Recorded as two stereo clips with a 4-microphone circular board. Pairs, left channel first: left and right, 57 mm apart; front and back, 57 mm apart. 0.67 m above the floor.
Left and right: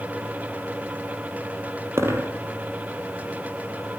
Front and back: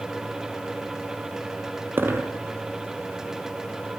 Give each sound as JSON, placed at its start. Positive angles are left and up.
{"t": 2.0, "sound": "a dropped coin", "azimuth_deg": -130, "distance_m": 3.5}